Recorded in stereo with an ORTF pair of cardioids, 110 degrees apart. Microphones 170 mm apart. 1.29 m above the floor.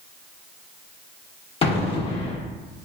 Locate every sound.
1.6 s an explosion: 35° left, 0.8 m